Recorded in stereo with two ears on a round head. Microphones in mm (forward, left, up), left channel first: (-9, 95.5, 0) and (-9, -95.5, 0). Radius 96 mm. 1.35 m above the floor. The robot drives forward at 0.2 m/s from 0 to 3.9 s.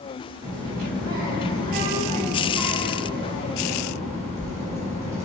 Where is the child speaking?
45° right (ahead or behind), 1.1 m; by 5.2 s 30° right (ahead or behind), 1.6 m.